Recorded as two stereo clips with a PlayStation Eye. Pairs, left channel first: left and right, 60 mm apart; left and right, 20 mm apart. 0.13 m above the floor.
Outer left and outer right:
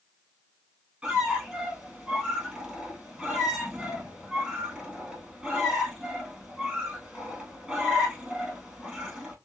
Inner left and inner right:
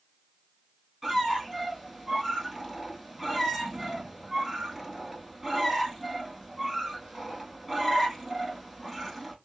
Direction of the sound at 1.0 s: 10° right (ahead or behind).